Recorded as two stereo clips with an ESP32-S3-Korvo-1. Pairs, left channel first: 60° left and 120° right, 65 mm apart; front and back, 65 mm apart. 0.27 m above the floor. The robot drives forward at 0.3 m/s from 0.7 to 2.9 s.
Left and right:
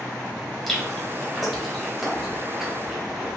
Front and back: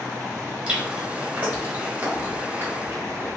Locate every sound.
0.7 s chewing: 135° left, 1.3 m; by 3.4 s 165° left, 1.6 m